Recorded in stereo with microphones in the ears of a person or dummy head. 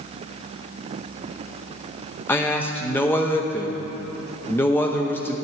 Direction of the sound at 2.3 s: 15° left (ahead or behind).